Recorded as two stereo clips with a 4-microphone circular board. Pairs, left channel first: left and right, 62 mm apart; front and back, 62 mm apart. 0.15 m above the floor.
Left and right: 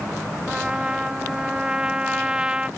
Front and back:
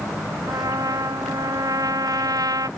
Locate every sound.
0.5 s a trumpet: 165° right